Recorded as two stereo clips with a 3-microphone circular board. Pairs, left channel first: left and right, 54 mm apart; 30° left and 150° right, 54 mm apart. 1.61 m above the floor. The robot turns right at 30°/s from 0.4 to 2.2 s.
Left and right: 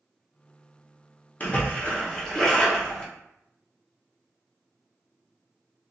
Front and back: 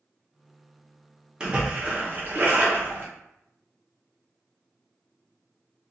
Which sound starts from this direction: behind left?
A splash, at 1.4 s.